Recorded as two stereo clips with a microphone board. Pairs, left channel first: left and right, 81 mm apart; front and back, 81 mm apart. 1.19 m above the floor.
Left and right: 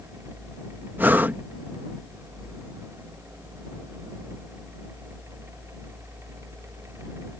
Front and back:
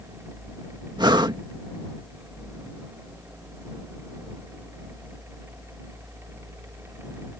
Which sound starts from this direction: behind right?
Breathing, at 1.0 s.